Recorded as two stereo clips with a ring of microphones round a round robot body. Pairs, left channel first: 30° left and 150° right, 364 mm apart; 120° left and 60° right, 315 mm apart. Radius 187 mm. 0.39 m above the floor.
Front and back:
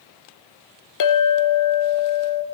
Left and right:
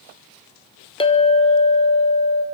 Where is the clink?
50° left, 0.7 m.